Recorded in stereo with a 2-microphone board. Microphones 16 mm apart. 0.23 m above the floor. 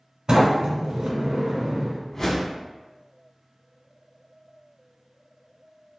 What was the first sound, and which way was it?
A sliding door, 65° right (ahead or behind).